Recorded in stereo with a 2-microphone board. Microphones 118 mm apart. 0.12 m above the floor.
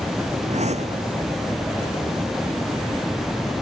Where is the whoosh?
75° right (ahead or behind).